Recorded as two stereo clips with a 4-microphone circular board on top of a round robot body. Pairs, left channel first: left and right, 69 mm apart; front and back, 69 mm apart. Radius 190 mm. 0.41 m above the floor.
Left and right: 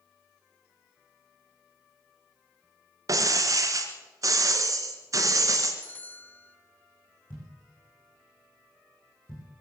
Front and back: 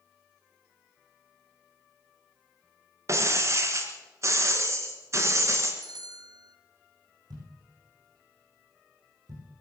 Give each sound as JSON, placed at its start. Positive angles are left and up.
{"t": 3.1, "sound": "breaking glass", "azimuth_deg": -130, "distance_m": 2.0}
{"t": 5.8, "sound": "a bell", "azimuth_deg": 155, "distance_m": 0.9}
{"t": 7.3, "sound": "a thud", "azimuth_deg": 155, "distance_m": 7.5}